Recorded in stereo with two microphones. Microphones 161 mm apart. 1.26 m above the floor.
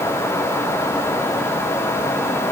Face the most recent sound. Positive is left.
No sound to turn to.